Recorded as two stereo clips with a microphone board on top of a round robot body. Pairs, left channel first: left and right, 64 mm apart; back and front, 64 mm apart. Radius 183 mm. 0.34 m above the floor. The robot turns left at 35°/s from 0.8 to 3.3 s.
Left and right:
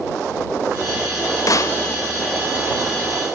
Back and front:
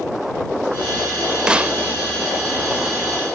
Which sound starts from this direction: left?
A snare drum, at 1.5 s.